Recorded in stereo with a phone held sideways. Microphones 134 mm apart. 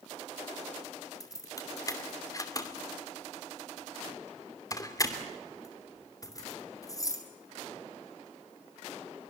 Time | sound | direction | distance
1.2 | keys jangling | 25° left (ahead or behind) | 2.5 m